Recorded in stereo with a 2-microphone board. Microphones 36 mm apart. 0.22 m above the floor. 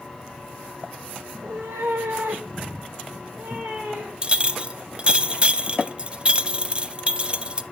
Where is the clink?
30° right (ahead or behind), 0.6 m.